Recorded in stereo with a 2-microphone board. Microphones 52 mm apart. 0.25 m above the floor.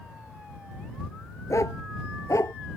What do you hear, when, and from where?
1.5 s a dog barking: 75° left (ahead or behind)